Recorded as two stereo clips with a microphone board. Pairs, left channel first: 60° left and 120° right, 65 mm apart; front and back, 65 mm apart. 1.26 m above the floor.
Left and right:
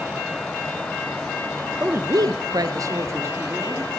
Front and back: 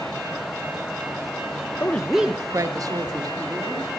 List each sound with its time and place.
1.8 s a woman speaking: 60° right, 0.8 m; by 3.9 s 175° right, 2.5 m